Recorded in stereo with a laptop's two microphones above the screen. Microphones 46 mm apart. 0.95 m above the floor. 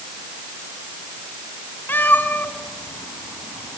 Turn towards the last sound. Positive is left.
turn(degrees=50)  # may be behind; listen again after turning